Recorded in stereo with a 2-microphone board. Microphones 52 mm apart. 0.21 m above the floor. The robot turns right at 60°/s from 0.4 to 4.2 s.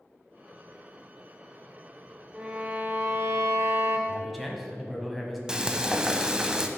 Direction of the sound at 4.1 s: 5° left (ahead or behind).